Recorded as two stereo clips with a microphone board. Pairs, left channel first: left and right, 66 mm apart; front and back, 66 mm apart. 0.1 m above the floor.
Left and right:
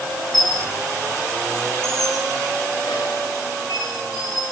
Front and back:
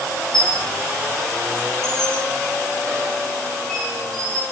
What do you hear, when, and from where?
0.3 s a squeak: 85° left, 6.5 m